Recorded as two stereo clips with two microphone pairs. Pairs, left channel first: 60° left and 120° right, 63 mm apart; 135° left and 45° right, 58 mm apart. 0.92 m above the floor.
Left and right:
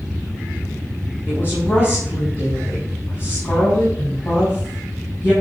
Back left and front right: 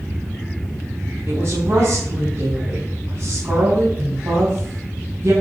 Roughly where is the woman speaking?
Ahead.